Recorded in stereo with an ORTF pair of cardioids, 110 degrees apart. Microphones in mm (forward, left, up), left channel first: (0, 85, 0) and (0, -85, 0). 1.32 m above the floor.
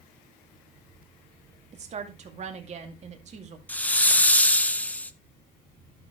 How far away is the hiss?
About 0.7 m.